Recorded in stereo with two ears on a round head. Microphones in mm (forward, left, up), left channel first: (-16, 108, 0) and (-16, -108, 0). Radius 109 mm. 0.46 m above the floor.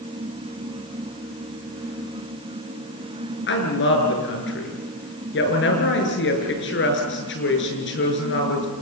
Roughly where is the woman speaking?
Left.